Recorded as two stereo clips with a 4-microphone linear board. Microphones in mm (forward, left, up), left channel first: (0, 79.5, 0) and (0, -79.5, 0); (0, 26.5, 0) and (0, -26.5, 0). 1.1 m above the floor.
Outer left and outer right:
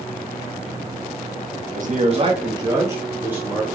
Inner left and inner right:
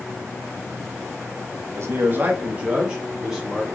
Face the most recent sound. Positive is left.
turn(degrees=-5)  # may be behind; listen again after turning